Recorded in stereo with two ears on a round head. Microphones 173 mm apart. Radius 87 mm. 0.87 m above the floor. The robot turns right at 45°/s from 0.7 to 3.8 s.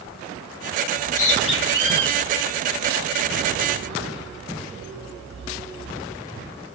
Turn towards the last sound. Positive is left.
turn(degrees=-55)  # may be behind; listen again after turning